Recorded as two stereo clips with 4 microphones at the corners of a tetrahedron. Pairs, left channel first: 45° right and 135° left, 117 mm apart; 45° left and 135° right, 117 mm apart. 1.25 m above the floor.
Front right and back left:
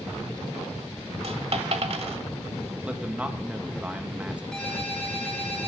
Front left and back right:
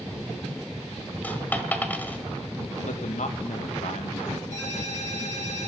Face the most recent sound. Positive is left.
turn(degrees=40)